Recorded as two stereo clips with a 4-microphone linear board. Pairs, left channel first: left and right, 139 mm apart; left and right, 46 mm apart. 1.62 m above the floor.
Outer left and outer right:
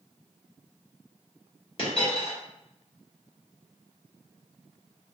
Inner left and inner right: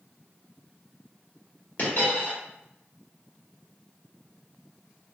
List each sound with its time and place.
1.8 s a dropped coin: 45° left (ahead or behind), 1.4 m